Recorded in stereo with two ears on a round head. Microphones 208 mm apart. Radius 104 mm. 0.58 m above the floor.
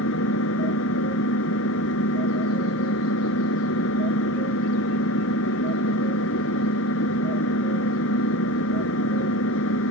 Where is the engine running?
65° left (ahead or behind).